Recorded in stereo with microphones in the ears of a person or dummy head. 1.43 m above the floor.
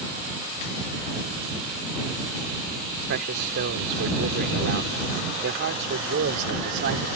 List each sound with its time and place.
3.1 s a man speaking: 55° right (ahead or behind)